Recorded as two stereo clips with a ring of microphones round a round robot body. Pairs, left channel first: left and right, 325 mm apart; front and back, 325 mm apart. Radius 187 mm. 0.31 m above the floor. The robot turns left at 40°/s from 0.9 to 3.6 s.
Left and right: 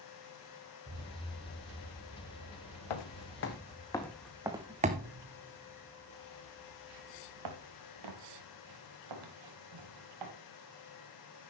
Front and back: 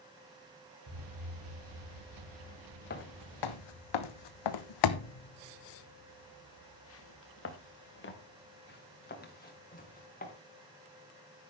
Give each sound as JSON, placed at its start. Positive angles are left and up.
{"t": 0.9, "sound": "an explosion", "azimuth_deg": -150, "distance_m": 4.5}
{"t": 2.9, "sound": "footsteps", "azimuth_deg": 65, "distance_m": 1.1}